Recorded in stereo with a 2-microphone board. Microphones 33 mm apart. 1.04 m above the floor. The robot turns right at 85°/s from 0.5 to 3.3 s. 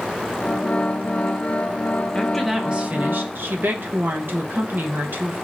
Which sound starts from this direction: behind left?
A woman speaking, at 2.1 s.